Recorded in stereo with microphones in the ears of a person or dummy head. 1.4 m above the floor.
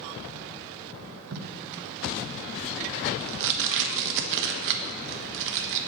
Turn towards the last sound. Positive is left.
turn(degrees=-70)  # may be behind; listen again after turning